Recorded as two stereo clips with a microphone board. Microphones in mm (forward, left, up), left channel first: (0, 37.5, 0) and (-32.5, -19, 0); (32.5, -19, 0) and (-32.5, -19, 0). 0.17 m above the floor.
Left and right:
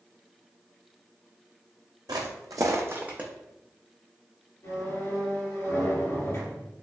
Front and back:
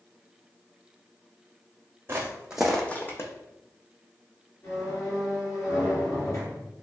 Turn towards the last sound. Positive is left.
turn(degrees=15)